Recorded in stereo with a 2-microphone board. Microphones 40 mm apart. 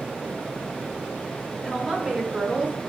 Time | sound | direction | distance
1.6 | a woman speaking | 10° right (ahead or behind) | 0.8 m